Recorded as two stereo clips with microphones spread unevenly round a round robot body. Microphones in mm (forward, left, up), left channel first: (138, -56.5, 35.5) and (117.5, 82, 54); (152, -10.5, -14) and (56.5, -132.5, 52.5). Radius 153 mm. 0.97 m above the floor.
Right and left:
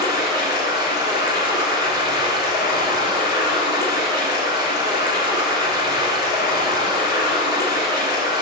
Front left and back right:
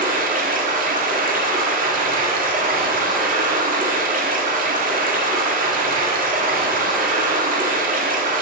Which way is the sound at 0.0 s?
100° right.